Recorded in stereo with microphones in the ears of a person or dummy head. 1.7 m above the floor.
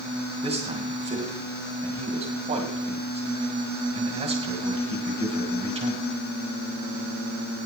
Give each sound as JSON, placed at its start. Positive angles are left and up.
{"t": 0.4, "sound": "a man speaking", "side_deg": -25, "distance_m": 2.5}